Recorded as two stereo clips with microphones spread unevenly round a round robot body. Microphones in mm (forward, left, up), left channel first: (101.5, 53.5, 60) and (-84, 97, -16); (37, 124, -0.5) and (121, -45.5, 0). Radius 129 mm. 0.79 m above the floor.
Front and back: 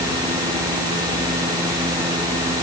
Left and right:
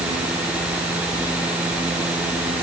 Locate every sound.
Only background noise.